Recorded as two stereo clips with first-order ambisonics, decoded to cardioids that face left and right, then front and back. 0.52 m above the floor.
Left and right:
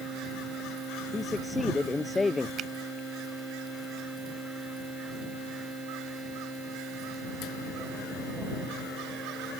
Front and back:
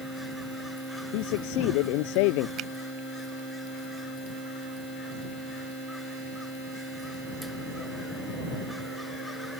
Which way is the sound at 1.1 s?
10° left.